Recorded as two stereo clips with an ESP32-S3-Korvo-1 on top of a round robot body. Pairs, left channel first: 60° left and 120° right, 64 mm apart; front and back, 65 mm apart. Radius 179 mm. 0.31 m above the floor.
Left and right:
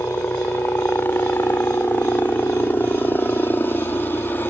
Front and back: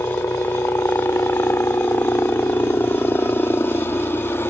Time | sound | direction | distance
0.0 | a helicopter | 25° left | ?